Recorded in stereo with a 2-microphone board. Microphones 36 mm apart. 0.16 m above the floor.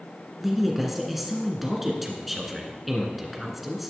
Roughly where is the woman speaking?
Centre.